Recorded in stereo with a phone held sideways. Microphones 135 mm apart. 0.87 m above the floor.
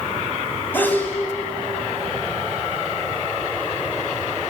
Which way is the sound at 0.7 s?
15° left (ahead or behind).